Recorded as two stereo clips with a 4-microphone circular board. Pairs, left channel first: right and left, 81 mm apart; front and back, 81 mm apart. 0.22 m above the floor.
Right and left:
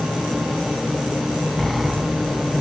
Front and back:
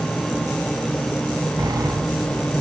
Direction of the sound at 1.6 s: Straight behind.